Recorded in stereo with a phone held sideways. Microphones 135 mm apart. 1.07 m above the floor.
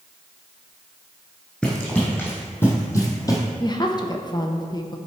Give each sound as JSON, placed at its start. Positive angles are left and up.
{"t": 1.6, "sound": "running footsteps", "side_deg": 10, "distance_m": 2.5}
{"t": 3.6, "sound": "a woman speaking", "side_deg": 30, "distance_m": 0.8}